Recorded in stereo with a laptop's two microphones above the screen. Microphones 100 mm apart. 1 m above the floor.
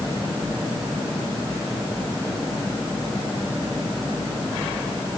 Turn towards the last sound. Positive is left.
No sound to turn to.